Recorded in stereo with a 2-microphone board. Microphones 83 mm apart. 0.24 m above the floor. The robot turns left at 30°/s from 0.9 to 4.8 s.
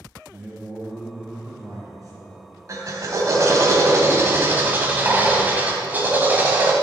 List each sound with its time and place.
0.3 s a man speaking: 15° right, 3 m; by 2.5 s 65° right, 3 m
2.7 s a drill: 85° right, 1.2 m; by 6.7 s 145° right, 1.2 m